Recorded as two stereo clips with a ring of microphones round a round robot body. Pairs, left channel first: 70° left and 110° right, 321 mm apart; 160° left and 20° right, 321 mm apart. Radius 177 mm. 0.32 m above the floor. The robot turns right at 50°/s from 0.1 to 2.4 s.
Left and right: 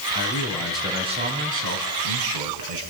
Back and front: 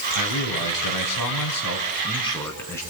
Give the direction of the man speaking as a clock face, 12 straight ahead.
8 o'clock.